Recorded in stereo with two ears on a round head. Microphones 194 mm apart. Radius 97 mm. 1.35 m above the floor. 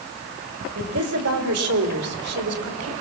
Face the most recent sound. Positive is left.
turn(degrees=-80)